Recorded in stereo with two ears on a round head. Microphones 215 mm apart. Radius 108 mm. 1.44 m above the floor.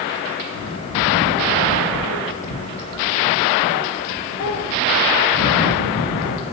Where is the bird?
60° left (ahead or behind), 0.8 m.